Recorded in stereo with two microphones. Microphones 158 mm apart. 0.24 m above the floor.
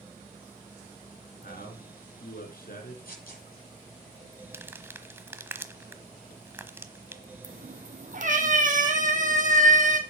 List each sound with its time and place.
1.4 s a man speaking: 65° left (ahead or behind), 3.5 m
3.0 s tearing paper: 65° left (ahead or behind), 7 m
4.5 s crumpling: 15° right (ahead or behind), 1.1 m
7.4 s a cat meowing: 55° right (ahead or behind), 2 m